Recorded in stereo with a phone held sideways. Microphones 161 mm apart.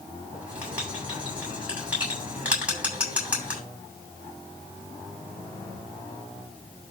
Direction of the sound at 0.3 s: 10° right (ahead or behind).